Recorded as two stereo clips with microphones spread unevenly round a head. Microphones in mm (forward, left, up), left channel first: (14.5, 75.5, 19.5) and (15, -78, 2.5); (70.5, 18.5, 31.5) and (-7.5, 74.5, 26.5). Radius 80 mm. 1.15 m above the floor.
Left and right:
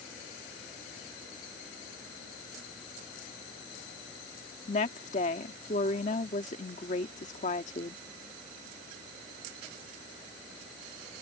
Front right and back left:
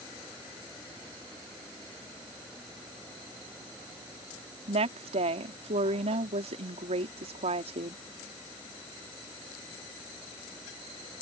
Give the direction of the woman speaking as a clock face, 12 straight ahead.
7 o'clock.